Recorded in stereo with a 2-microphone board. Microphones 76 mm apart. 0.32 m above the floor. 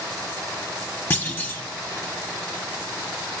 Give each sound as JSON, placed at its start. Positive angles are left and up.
{"t": 1.1, "sound": "a clunk", "side_deg": 25, "distance_m": 1.2}